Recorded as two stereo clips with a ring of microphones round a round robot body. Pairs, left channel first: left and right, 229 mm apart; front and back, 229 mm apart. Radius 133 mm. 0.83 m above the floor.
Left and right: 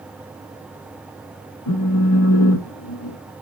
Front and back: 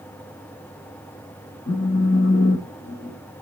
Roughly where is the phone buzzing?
Ahead left.